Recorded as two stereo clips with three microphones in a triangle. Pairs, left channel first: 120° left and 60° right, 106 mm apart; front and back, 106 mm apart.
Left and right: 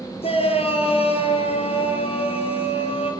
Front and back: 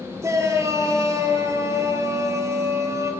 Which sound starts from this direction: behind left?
A shout, at 0.2 s.